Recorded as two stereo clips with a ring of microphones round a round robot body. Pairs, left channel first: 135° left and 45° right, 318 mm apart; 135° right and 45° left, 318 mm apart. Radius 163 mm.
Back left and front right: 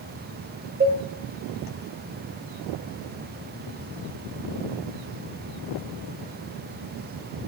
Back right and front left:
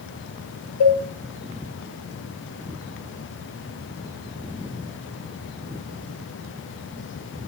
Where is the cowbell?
110° right, 1.5 m.